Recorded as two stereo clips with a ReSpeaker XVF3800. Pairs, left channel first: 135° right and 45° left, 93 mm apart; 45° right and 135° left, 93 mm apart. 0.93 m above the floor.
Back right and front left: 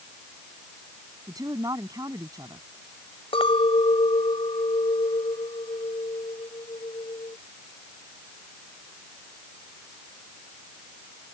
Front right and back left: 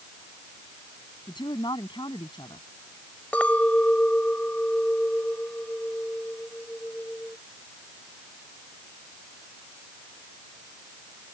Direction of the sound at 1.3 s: 5° right.